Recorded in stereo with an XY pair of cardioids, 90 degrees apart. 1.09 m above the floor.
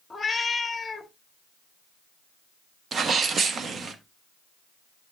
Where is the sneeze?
55° right, 1.2 m.